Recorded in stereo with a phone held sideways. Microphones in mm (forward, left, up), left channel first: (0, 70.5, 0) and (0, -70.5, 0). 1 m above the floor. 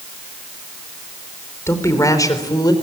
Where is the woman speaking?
20° left (ahead or behind), 4 m; by 2.7 s 30° left (ahead or behind), 4.5 m.